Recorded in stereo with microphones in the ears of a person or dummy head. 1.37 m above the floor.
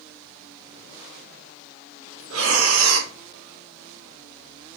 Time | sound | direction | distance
2.3 | breathing | 75° right (ahead or behind) | 0.8 m